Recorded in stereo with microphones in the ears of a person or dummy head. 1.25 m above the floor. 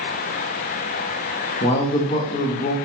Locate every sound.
1.6 s a man speaking: 40° left (ahead or behind), 0.6 m